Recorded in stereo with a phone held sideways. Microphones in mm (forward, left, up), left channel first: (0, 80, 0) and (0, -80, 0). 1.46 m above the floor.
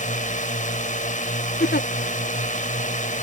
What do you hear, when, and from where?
0.0 s a drone: 50° left (ahead or behind)
1.6 s a giggle: 90° left